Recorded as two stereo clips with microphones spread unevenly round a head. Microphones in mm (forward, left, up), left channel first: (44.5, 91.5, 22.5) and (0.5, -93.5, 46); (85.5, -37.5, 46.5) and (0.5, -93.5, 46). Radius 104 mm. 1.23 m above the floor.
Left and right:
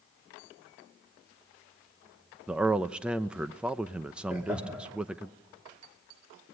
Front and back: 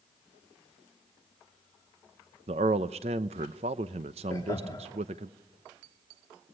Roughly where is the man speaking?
Behind.